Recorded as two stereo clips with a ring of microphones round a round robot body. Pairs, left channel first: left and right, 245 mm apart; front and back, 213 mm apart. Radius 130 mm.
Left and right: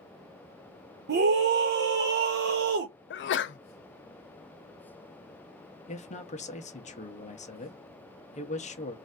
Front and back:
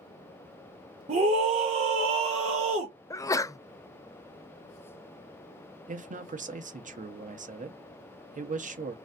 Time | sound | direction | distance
1.1 | a scream | 125° right | 0.7 m
3.1 | a sneeze | 70° left | 0.5 m
5.9 | a man speaking | 140° left | 0.8 m